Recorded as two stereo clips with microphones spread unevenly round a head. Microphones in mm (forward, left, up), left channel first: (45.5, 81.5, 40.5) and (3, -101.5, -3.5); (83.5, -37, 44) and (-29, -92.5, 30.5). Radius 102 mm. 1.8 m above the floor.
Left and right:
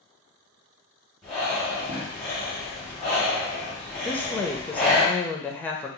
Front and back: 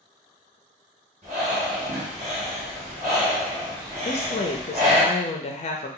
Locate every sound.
1.2 s breathing: 150° left, 1.1 m
4.0 s a woman speaking: straight ahead, 0.6 m